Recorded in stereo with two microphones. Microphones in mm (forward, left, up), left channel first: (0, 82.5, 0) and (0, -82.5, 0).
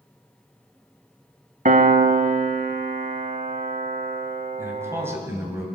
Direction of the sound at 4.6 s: 15° right (ahead or behind).